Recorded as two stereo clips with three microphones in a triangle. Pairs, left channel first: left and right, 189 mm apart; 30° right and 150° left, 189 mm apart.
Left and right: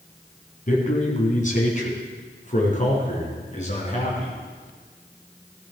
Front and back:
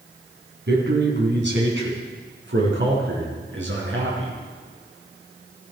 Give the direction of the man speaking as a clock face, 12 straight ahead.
8 o'clock.